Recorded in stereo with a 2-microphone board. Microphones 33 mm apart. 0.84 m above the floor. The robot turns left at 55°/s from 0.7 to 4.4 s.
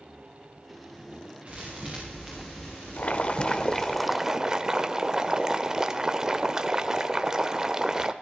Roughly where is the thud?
Behind right.